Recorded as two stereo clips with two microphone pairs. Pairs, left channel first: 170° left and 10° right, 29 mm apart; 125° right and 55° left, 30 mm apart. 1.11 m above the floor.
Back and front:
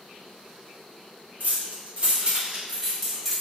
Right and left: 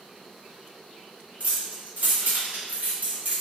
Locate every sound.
1.4 s keys jangling: 15° left, 0.9 m; by 3.4 s 90° left, 1.1 m